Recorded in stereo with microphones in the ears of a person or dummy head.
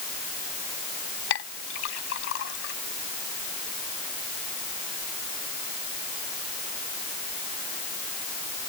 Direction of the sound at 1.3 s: 75° left (ahead or behind).